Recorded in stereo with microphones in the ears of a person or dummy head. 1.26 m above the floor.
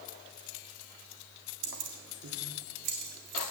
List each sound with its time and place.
1.6 s keys jangling: 75° right (ahead or behind), 1.6 m; by 3.4 s 55° right (ahead or behind), 2.5 m